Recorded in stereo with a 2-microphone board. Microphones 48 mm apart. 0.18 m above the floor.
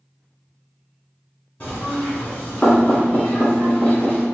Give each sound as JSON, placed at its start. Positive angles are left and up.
{"t": 1.6, "sound": "knocking", "side_deg": 30, "distance_m": 1.7}